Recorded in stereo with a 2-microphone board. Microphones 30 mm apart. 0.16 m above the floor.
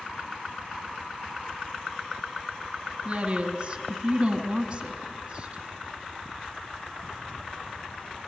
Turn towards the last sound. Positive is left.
turn(degrees=-25)  # may be behind; listen again after turning